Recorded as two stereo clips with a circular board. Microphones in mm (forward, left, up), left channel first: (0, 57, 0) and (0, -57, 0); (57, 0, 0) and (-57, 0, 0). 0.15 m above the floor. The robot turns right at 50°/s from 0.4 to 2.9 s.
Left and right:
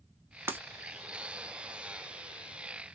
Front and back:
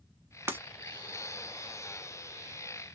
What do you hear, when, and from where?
0.5 s breaking glass: 135° right, 0.6 m; by 0.6 s 130° right, 0.6 m